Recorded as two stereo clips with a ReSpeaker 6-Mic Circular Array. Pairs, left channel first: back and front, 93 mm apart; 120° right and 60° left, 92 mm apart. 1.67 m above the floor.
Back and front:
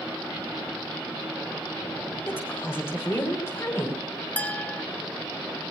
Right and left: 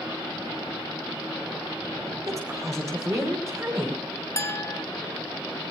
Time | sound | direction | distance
2.3 | a woman speaking | 115° left | 5 m
4.4 | a clink | 125° right | 0.6 m